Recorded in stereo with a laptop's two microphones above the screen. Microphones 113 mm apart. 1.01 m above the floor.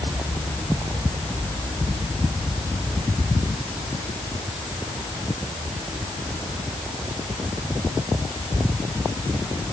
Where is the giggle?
No giggle in this recording.